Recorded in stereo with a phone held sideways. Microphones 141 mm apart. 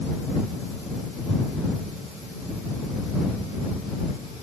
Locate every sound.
Only background noise.